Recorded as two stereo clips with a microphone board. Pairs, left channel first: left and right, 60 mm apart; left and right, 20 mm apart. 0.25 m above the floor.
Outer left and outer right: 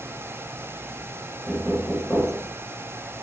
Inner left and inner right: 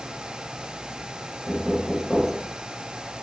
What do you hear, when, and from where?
1.5 s knocking: 10° left (ahead or behind), 2 m